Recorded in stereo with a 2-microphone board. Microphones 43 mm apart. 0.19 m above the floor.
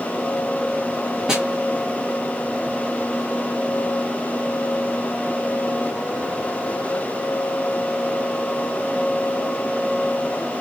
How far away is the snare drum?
About 1.7 m.